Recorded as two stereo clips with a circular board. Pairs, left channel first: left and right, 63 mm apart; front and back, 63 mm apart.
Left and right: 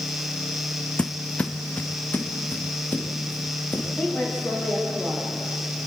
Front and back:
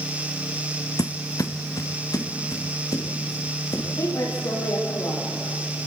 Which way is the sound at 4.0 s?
15° left.